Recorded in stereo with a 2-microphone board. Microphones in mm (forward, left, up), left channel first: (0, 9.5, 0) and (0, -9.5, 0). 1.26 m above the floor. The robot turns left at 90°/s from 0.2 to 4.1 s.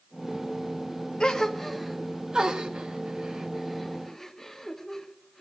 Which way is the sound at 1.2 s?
50° left (ahead or behind).